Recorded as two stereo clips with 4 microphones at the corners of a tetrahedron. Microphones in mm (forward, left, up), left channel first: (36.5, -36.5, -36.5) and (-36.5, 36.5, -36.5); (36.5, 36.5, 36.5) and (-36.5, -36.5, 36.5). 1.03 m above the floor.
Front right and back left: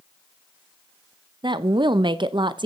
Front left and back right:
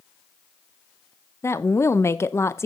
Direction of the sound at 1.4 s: 105° left.